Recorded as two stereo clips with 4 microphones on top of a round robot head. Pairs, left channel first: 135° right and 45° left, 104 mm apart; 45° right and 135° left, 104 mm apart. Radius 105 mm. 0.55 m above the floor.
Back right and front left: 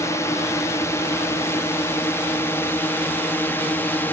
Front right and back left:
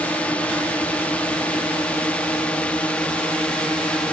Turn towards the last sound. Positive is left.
turn(degrees=-105)